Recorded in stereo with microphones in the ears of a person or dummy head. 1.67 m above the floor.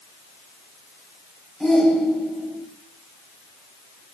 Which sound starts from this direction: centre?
A shout, at 1.6 s.